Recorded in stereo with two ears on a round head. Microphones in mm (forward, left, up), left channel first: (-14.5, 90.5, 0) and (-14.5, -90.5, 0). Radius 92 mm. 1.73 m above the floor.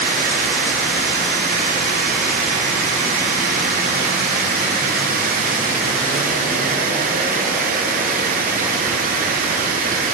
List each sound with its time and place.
0.0 s running water: 45° right (ahead or behind), 0.9 m